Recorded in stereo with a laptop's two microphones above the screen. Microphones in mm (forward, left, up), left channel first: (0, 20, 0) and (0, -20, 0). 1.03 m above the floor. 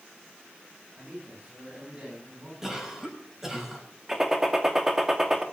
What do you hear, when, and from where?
0.9 s a man speaking: 30° right (ahead or behind), 7 m
2.6 s a cough: 10° right (ahead or behind), 7 m
4.1 s a gunshot: 10° right (ahead or behind), 2.5 m